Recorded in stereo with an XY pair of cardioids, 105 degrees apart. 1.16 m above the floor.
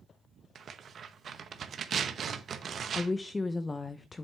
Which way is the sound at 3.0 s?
30° left.